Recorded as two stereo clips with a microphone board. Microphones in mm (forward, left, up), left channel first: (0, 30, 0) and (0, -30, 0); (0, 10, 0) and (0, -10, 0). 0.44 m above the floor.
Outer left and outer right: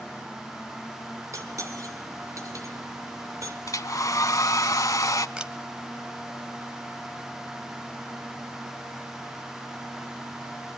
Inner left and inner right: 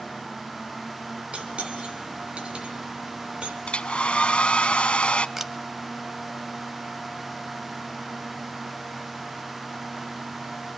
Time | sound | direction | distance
1.3 | cutlery clinking | 60° right (ahead or behind) | 2.5 m
3.7 | a hair dryer | 70° left (ahead or behind) | 0.6 m
5.4 | a camera shutter | 15° right (ahead or behind) | 1.3 m